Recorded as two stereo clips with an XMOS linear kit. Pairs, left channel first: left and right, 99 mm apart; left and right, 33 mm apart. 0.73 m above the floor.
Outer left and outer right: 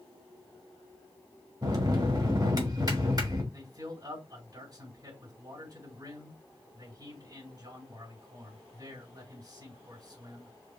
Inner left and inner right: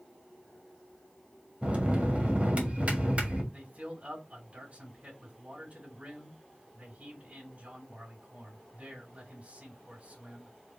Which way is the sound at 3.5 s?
45° right (ahead or behind).